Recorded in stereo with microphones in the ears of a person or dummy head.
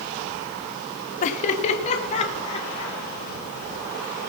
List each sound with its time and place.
1.2 s laughter: 40° left (ahead or behind), 1.0 m; by 3.0 s 30° left (ahead or behind), 3.5 m